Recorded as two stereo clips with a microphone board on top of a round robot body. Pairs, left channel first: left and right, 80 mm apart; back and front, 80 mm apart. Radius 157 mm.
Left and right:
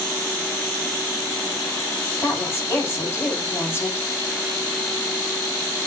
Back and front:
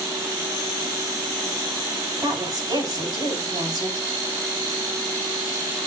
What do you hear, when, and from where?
2.2 s a woman speaking: 30° left, 6.5 m